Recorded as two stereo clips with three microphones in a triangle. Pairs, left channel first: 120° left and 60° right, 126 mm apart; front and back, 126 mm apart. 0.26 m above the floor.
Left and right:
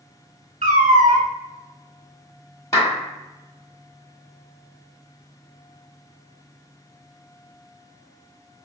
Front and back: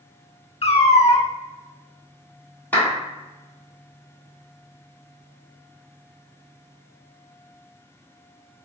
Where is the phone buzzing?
I don't hear a phone buzzing.